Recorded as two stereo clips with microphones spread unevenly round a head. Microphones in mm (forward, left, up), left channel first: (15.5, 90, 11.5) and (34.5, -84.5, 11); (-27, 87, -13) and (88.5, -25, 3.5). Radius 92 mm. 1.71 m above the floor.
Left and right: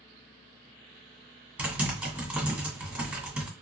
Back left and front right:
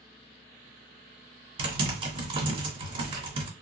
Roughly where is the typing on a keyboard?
Ahead.